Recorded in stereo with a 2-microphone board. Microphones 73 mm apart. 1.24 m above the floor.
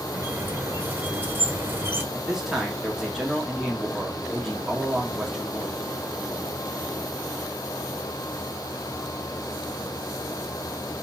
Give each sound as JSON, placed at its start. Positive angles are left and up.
{"t": 0.1, "sound": "a squeak", "side_deg": -30, "distance_m": 1.2}
{"t": 2.1, "sound": "a man speaking", "side_deg": -5, "distance_m": 3.0}